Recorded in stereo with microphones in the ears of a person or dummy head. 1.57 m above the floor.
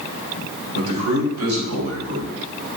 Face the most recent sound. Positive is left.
turn(degrees=-75)  # may be behind; listen again after turning